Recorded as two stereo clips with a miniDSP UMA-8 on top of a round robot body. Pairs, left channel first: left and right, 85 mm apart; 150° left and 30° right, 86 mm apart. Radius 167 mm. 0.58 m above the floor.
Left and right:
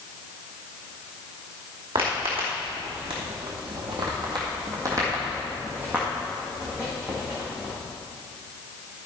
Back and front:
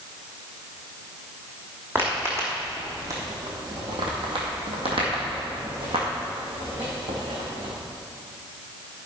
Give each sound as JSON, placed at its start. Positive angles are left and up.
{"t": 1.9, "sound": "footsteps", "azimuth_deg": -95, "distance_m": 2.5}